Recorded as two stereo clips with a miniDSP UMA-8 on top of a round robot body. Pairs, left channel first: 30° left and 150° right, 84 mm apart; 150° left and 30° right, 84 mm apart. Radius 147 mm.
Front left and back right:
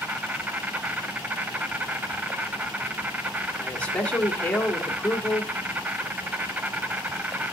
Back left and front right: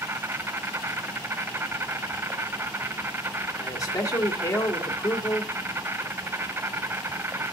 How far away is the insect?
About 1.2 m.